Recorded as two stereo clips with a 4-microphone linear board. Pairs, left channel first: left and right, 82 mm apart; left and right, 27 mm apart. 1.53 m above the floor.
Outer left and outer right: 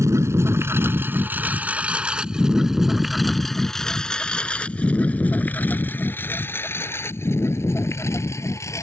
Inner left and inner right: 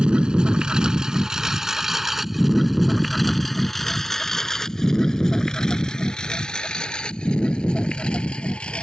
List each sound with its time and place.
0.0 s a lawn mower: 35° right (ahead or behind); by 8.8 s 35° left (ahead or behind)